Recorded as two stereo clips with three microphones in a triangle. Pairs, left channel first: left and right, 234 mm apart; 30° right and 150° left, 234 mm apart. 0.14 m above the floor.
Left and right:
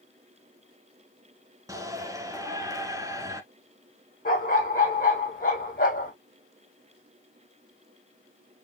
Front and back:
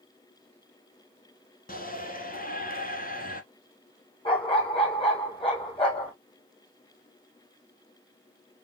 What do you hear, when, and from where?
1.7 s a shout: 25° right, 1.5 m
4.2 s a dog barking: 35° left, 2 m